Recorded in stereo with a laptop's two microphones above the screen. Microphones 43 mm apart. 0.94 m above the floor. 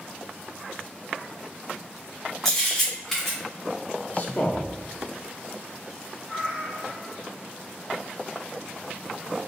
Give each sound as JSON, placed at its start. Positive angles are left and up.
{"t": 2.5, "sound": "a camera shutter", "side_deg": 10, "distance_m": 1.1}
{"t": 4.1, "sound": "a man speaking", "side_deg": 40, "distance_m": 0.7}
{"t": 6.3, "sound": "a cat meowing", "side_deg": -5, "distance_m": 0.9}